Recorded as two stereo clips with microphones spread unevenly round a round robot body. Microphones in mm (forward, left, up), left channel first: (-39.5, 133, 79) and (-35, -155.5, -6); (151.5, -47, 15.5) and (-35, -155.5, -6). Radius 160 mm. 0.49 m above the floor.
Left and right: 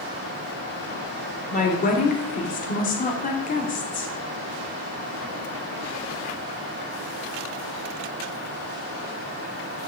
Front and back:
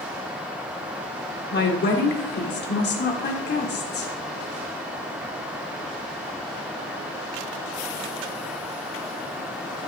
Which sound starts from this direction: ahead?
A woman speaking, at 1.5 s.